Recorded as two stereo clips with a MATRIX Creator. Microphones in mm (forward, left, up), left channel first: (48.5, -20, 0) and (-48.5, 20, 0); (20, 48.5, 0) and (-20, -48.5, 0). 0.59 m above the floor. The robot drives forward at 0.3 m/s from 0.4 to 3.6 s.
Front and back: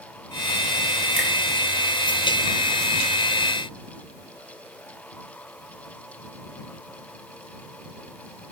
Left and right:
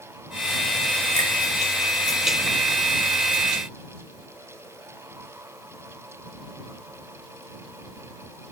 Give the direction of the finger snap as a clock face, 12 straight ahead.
9 o'clock.